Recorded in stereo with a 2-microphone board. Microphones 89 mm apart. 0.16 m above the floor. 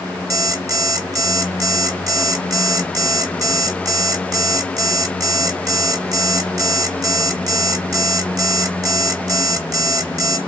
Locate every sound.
0.3 s an alarm clock: 40° right (ahead or behind), 1.2 m